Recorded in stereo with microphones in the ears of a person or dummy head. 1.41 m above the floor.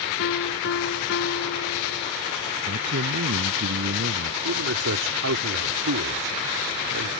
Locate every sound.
0.2 s a piano: 65° left (ahead or behind)
2.7 s a man speaking: 60° right (ahead or behind)
4.4 s a man speaking: 70° right (ahead or behind)